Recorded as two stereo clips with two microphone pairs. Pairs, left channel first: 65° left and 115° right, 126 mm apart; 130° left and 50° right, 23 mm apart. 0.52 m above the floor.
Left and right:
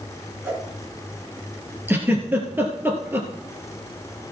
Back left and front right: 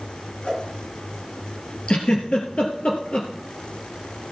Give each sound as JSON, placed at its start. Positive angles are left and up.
{"t": 0.4, "sound": "a whoosh", "azimuth_deg": 170, "distance_m": 3.5}
{"t": 1.9, "sound": "a giggle", "azimuth_deg": 170, "distance_m": 2.5}